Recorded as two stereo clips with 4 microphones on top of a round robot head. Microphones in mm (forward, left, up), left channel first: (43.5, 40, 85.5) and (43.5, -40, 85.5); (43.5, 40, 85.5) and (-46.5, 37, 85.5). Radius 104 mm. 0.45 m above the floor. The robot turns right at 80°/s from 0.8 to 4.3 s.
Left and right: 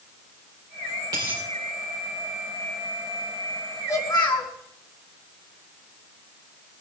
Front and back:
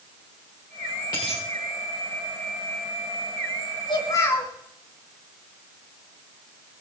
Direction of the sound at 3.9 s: 35° left.